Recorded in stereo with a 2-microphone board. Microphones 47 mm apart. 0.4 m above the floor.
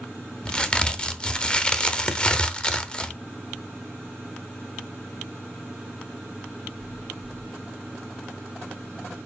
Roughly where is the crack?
Centre.